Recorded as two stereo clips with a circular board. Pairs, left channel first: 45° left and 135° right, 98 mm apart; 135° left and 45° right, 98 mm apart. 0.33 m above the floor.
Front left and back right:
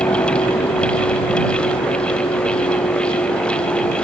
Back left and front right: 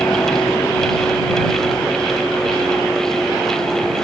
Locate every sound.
0.0 s a vehicle: 75° left; by 4.0 s 40° left